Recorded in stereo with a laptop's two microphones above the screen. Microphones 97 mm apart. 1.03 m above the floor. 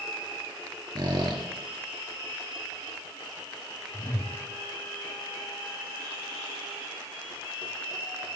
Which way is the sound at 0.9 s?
45° right (ahead or behind).